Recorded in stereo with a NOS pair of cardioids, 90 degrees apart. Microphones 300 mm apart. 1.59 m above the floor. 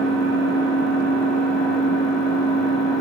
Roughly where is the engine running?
Ahead.